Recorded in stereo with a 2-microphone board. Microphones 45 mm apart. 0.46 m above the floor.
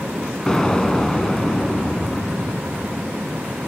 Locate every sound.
0.5 s an explosion: 10° left (ahead or behind), 1.2 m